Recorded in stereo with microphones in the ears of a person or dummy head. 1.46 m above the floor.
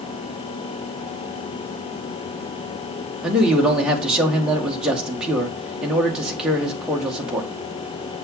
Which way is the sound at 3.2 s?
10° right (ahead or behind).